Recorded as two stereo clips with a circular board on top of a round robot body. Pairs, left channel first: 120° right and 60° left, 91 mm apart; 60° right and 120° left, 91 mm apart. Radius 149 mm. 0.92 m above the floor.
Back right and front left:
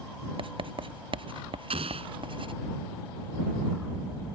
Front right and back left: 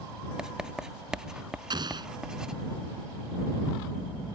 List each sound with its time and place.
0.4 s writing: 40° left
1.7 s an explosion: 75° left